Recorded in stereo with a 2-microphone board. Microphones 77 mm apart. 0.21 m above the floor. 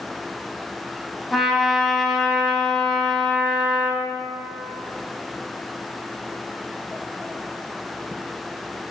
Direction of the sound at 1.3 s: Centre (ahead or behind).